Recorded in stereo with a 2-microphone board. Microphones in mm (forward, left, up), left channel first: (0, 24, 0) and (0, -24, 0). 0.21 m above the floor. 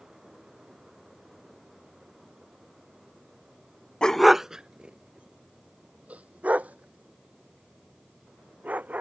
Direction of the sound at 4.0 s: 20° left (ahead or behind).